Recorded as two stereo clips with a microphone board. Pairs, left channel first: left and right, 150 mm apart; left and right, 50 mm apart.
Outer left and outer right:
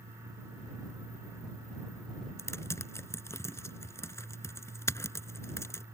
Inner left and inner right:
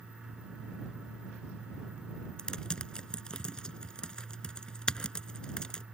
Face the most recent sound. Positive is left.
turn(degrees=20)  # may be behind; listen again after turning